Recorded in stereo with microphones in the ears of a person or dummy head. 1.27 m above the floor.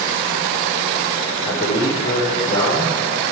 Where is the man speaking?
30° left (ahead or behind), 4 m; by 3.0 s 10° left (ahead or behind), 4 m.